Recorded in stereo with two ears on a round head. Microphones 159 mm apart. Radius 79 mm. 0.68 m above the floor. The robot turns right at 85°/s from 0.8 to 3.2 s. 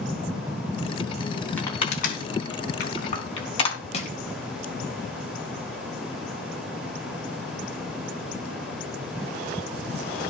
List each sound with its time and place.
1.6 s crushing: 10° left (ahead or behind), 4 m; by 3.8 s 30° left (ahead or behind), 4 m
3.9 s crushing: 35° left (ahead or behind), 3.5 m